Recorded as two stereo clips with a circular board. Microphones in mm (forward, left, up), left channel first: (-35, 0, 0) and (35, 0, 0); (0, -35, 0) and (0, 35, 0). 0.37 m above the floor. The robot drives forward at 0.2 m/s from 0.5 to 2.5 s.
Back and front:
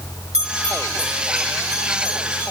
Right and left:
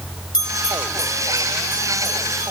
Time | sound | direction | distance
0.3 | a bell | 80° right | 6 m